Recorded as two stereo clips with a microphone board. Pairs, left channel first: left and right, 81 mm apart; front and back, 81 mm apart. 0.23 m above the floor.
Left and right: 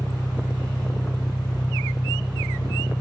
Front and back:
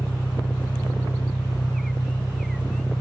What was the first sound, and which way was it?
An engine running, 65° left.